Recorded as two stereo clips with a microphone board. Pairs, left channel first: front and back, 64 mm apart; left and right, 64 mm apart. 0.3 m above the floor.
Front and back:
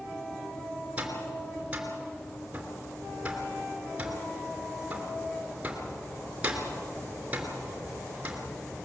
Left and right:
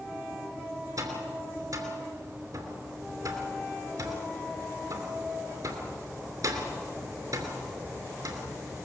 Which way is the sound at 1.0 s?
110° right.